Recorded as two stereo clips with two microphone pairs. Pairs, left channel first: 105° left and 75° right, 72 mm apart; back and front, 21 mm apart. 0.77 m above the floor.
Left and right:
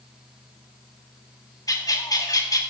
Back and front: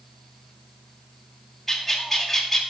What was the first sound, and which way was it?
A bird, 100° left.